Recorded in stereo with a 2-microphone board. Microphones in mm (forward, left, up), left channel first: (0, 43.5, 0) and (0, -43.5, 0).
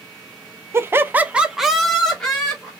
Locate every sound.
0.7 s laughter: 30° right (ahead or behind), 0.6 m; by 2.7 s 10° left (ahead or behind), 1.6 m